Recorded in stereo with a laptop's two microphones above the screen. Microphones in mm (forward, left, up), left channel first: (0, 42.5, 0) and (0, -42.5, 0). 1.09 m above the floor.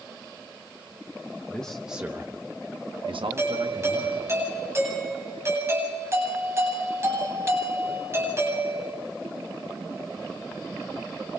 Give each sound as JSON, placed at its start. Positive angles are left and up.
{"t": 1.5, "sound": "a man speaking", "side_deg": 20, "distance_m": 0.9}
{"t": 3.4, "sound": "a doorbell", "side_deg": -30, "distance_m": 9.0}